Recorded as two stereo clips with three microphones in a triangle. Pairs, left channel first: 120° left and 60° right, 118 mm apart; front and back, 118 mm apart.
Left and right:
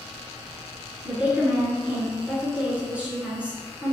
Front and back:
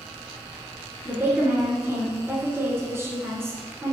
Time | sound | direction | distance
1.1 | a woman speaking | 130° right | 1.3 m